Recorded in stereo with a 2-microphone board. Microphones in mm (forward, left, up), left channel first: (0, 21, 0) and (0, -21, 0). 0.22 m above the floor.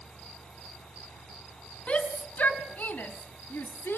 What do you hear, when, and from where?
1.9 s a shout: 30° left (ahead or behind), 2 m; by 4.0 s 55° left (ahead or behind), 2.5 m